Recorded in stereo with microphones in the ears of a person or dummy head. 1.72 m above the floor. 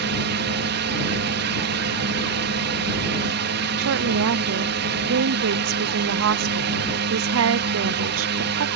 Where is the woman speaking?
75° right (ahead or behind).